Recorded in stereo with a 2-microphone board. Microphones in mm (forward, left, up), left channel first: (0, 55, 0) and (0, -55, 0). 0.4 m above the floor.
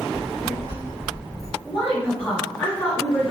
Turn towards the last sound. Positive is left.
turn(degrees=20)  # may be behind; listen again after turning